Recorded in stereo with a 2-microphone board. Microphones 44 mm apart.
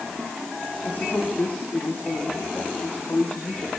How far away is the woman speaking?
About 8 m.